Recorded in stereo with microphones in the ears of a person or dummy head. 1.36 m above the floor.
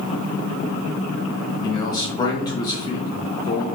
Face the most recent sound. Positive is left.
turn(degrees=20)  # may be behind; listen again after turning